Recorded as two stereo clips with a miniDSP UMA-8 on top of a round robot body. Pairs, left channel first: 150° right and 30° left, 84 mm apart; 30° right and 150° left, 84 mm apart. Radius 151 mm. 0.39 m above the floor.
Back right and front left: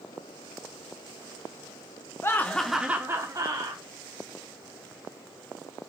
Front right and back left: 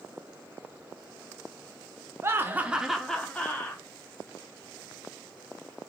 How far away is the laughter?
About 0.9 m.